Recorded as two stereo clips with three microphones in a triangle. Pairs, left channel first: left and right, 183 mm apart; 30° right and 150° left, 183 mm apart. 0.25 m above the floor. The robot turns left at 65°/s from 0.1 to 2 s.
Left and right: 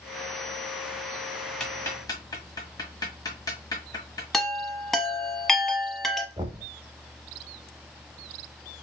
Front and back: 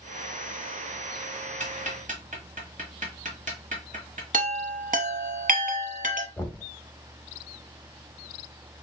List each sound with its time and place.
1.6 s ticking: 175° left, 1.2 m; by 4.2 s 150° left, 1.2 m
4.3 s a chime: straight behind, 0.7 m
6.4 s knocking: 100° right, 0.7 m